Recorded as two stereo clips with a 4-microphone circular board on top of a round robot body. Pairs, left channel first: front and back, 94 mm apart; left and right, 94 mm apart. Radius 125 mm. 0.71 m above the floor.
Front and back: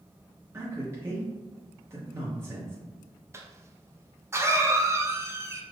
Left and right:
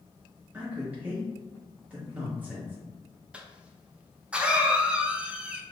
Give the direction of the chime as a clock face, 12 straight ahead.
No chime in this recording.